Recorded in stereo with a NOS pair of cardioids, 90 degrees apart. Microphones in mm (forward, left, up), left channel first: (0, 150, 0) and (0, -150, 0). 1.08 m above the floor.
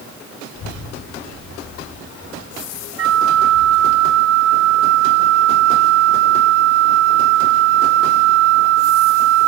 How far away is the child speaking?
About 1.7 m.